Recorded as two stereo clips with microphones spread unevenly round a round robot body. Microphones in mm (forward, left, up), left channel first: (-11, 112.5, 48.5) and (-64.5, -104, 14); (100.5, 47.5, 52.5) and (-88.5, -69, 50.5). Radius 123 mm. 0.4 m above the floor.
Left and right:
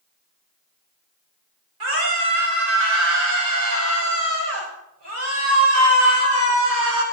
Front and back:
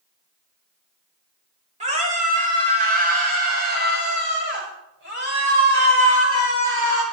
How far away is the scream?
About 9.5 m.